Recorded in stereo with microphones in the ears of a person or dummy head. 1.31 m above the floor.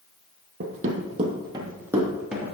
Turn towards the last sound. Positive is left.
turn(degrees=0)  # may be behind; listen again after turning